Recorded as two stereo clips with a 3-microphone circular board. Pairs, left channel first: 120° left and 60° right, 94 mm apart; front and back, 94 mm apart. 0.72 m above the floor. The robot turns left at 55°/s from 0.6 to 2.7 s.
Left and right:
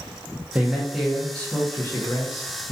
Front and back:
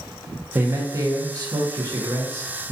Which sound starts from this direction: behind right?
A man speaking, at 0.6 s.